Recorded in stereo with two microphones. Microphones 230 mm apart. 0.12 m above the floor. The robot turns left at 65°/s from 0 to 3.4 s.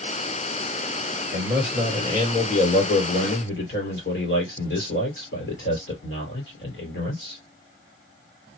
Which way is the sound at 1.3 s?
150° right.